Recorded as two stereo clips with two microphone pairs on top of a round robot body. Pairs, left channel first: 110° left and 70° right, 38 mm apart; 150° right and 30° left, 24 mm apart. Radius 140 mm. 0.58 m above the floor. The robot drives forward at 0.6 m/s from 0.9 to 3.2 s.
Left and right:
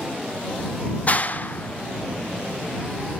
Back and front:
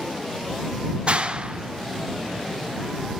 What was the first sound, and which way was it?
A clap, 65° left.